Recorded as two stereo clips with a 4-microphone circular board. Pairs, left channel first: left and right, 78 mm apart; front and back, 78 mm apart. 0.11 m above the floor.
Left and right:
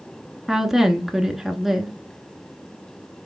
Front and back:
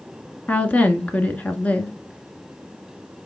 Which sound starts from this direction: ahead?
A woman speaking, at 0.5 s.